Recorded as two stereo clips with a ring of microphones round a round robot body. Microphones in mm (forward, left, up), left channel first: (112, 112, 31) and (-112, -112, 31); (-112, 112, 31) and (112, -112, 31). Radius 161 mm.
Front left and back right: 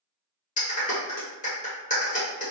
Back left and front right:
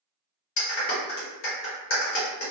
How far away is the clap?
About 1.0 m.